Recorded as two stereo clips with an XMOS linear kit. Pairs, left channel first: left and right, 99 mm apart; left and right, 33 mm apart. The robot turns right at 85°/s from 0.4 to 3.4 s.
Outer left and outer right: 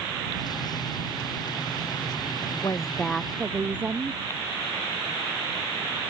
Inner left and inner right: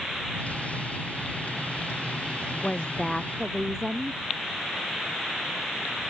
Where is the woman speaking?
130° left; by 4.2 s 160° right.